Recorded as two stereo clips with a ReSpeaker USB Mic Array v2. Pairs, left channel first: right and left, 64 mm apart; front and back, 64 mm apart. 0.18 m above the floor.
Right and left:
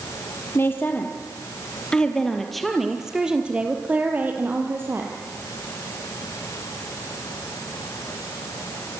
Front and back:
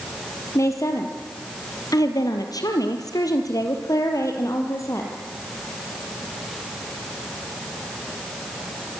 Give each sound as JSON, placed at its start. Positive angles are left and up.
{"t": 0.6, "sound": "a woman speaking", "azimuth_deg": -35, "distance_m": 4.0}